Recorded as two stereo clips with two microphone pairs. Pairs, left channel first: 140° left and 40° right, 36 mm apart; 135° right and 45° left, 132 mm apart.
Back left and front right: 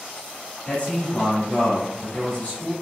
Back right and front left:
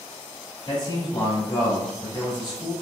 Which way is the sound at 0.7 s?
175° right.